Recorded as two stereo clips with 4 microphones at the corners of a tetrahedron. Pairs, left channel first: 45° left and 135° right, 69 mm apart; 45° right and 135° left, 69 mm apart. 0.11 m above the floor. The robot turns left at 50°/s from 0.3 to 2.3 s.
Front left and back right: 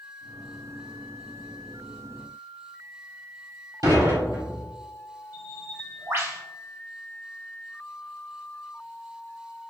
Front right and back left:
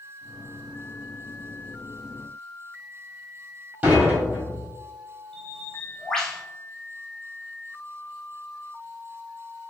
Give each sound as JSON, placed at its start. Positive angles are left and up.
{"t": 3.8, "sound": "dishes clattering", "azimuth_deg": -160, "distance_m": 1.7}
{"t": 5.3, "sound": "a bird", "azimuth_deg": -120, "distance_m": 0.8}